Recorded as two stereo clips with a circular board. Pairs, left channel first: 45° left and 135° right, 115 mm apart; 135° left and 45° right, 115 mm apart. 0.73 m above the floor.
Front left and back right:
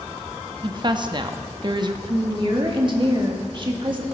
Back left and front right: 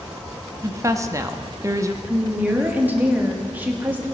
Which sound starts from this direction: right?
A woman speaking, at 0.6 s.